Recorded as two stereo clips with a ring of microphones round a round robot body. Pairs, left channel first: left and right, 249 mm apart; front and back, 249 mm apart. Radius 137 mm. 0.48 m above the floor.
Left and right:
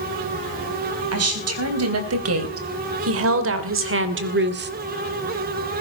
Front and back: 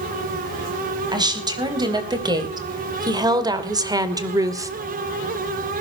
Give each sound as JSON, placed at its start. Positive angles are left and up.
{"t": 1.1, "sound": "a woman speaking", "azimuth_deg": -105, "distance_m": 4.0}